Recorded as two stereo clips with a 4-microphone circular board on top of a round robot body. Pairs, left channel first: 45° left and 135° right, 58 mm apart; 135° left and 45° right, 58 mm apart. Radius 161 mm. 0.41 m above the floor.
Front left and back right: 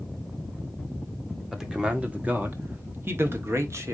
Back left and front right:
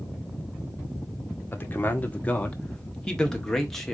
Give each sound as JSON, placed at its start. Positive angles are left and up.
{"t": 1.5, "sound": "a man speaking", "azimuth_deg": 150, "distance_m": 1.4}